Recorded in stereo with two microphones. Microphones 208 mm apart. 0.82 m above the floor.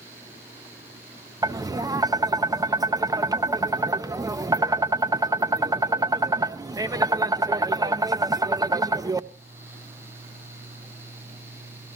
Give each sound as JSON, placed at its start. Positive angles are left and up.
{"t": 1.4, "sound": "tapping", "side_deg": -20, "distance_m": 0.6}